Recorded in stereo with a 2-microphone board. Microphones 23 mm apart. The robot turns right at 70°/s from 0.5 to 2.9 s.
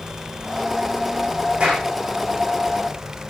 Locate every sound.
1.6 s a clap: 40° right (ahead or behind), 8 m; by 1.9 s 65° right (ahead or behind), 8 m